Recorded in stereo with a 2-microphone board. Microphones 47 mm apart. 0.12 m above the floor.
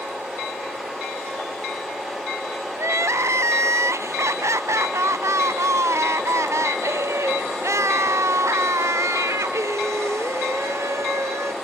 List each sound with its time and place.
2.8 s crying: 80° right